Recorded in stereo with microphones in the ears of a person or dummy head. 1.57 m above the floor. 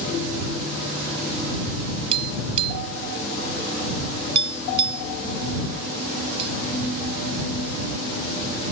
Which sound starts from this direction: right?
Tapping, at 2.1 s.